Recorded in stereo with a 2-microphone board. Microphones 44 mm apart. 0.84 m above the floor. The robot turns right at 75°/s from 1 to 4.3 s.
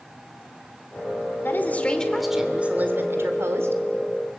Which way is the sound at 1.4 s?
120° left.